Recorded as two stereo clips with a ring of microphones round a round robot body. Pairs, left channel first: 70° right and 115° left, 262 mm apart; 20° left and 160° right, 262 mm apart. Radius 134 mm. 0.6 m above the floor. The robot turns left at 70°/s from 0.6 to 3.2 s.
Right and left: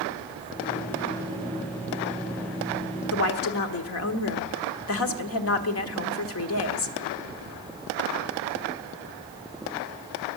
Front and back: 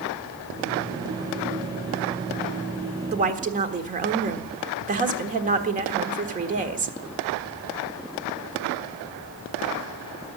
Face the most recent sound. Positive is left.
turn(degrees=-100)